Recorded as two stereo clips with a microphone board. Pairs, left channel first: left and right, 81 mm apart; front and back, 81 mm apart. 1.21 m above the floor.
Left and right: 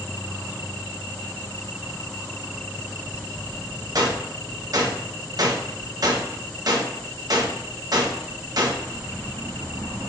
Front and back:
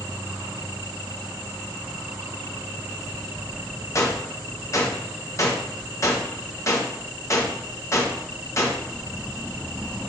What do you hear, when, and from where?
4.0 s a gunshot: 50° right, 1.1 m